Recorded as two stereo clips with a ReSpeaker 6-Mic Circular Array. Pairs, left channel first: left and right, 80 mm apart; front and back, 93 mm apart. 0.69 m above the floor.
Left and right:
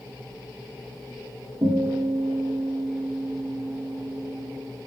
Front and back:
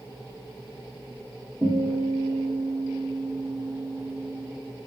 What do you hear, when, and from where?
1.6 s a guitar: 110° right, 5.5 m